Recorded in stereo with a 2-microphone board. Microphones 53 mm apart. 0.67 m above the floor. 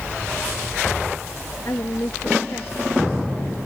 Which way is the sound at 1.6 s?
60° left (ahead or behind).